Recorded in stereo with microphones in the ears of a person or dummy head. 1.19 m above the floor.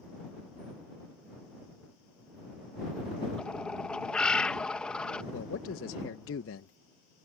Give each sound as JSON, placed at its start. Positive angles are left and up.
{"t": 3.4, "sound": "a bird", "side_deg": 5}
{"t": 5.3, "sound": "a man speaking", "side_deg": 65}